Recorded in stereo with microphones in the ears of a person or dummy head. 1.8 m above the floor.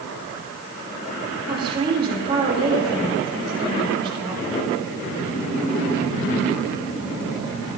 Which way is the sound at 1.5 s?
30° right (ahead or behind).